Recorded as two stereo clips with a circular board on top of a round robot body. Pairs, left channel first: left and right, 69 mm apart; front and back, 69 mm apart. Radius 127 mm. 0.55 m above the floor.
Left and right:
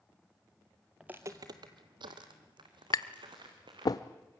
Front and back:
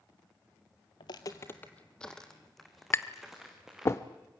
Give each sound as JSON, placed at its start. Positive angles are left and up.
{"t": 1.0, "sound": "footsteps", "azimuth_deg": -10, "distance_m": 0.8}
{"t": 2.9, "sound": "tapping", "azimuth_deg": 55, "distance_m": 0.7}